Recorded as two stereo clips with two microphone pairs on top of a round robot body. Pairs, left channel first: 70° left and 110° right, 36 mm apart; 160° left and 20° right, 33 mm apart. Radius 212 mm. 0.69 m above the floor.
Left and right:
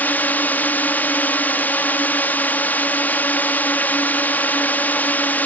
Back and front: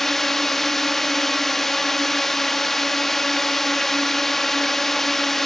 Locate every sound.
0.0 s a drone: 85° left